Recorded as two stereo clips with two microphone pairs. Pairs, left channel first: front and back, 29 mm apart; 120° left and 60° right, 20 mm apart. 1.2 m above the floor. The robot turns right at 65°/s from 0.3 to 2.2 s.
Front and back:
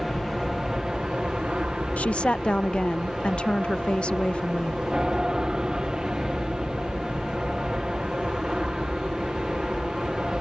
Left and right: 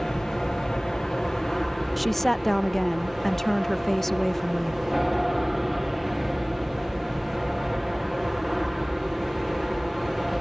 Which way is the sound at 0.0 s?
95° left.